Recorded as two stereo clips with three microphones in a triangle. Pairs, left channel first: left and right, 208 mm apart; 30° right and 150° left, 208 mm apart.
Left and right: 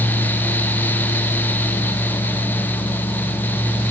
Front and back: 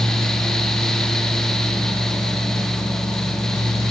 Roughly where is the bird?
I don't hear a bird.